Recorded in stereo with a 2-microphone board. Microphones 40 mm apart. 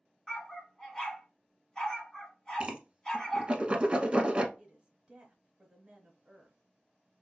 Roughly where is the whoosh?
Right.